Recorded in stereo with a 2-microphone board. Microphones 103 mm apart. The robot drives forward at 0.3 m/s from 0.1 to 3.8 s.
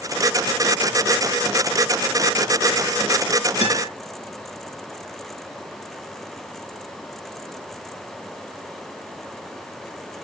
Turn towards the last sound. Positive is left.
turn(degrees=-75)  # may be behind; listen again after turning